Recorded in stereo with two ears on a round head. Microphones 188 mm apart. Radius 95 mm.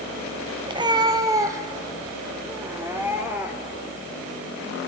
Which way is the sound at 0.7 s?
25° right (ahead or behind).